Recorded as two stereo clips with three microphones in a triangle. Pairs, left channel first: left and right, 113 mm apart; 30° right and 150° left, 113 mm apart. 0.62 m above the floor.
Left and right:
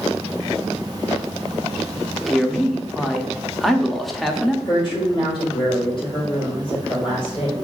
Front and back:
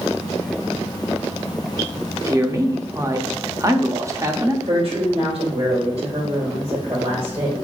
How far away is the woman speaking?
About 2.5 m.